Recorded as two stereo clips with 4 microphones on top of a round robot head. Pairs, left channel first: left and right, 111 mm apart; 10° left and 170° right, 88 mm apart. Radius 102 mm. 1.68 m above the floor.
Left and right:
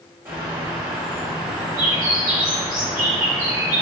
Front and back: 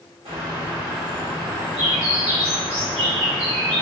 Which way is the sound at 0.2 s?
160° right.